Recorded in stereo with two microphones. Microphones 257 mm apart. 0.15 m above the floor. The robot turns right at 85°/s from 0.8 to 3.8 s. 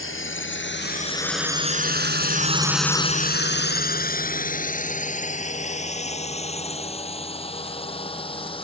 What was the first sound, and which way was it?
A drone, 55° left (ahead or behind).